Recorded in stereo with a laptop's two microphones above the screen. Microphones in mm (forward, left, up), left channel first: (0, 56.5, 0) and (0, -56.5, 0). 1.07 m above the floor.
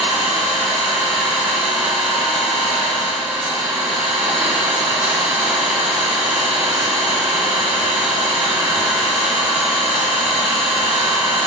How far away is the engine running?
About 1.6 m.